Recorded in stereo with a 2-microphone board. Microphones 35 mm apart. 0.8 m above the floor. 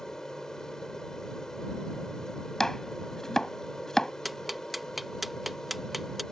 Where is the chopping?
15° left (ahead or behind).